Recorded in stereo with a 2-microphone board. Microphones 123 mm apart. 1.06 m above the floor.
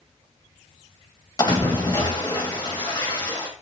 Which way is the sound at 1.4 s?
35° left (ahead or behind).